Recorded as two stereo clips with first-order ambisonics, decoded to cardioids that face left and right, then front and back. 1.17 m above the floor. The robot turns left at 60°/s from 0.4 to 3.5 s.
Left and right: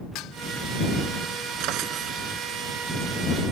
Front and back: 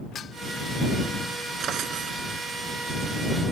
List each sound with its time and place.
0.1 s dishes clattering: 60° left
1.6 s a drawer: 120° right; by 2.2 s 155° right